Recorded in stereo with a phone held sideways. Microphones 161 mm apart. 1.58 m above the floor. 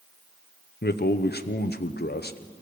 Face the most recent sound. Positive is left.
turn(degrees=85)